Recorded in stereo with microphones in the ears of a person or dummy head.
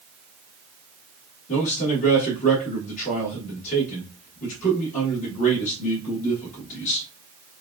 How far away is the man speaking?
About 1.4 m.